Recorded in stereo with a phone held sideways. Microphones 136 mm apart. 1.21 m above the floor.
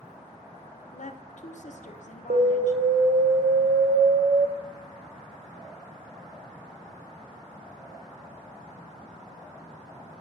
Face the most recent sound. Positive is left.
turn(degrees=-80)